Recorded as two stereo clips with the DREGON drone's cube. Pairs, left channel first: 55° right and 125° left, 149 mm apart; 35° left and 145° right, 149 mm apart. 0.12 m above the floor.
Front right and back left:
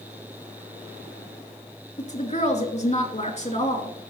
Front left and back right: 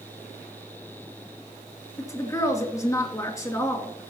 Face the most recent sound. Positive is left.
turn(degrees=-30)